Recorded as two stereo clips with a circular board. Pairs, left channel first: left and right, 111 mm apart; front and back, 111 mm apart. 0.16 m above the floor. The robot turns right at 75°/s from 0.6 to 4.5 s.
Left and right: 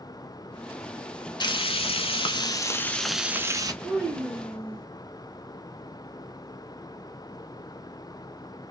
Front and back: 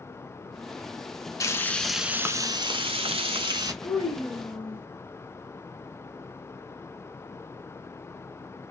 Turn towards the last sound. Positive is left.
turn(degrees=10)